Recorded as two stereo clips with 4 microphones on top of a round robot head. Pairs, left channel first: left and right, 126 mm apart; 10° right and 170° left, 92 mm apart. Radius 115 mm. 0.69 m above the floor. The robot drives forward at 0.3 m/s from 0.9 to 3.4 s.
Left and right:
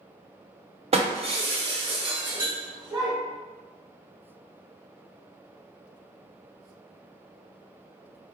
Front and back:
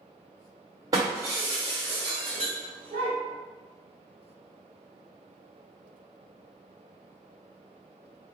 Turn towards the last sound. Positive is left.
turn(degrees=-150)